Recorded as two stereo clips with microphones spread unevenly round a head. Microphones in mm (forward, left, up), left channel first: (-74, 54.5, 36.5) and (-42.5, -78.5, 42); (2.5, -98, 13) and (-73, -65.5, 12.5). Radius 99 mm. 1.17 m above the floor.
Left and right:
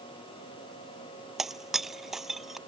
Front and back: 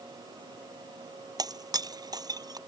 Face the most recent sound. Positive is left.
turn(degrees=-165)